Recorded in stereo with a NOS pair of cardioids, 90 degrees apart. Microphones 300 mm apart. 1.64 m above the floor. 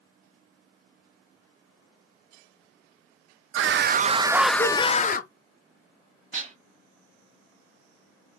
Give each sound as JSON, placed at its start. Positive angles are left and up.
{"t": 3.5, "sound": "a scream", "azimuth_deg": -50, "distance_m": 0.6}
{"t": 6.3, "sound": "dishes clattering", "azimuth_deg": -30, "distance_m": 1.9}